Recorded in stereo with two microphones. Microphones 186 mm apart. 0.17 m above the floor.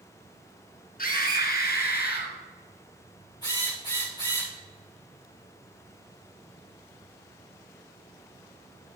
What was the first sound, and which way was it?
A scream, 50° left (ahead or behind).